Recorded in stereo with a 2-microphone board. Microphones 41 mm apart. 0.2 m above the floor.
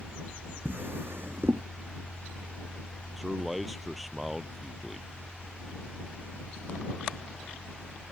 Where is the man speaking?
5° right (ahead or behind).